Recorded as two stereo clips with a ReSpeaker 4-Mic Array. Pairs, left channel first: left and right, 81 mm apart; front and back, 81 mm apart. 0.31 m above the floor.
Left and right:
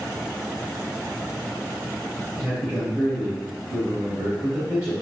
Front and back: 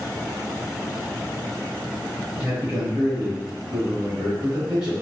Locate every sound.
2.4 s a man speaking: 110° right, 1.1 m